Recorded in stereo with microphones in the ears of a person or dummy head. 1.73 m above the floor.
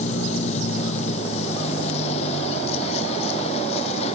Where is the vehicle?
45° left (ahead or behind); by 4.2 s 40° left (ahead or behind).